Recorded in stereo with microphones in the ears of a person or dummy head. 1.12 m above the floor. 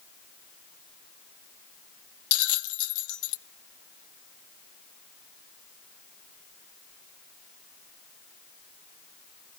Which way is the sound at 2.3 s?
80° left.